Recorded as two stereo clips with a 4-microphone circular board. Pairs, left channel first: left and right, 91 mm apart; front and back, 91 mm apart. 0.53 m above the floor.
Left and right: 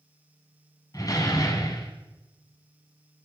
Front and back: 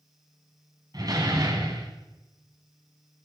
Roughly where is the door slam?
Behind left.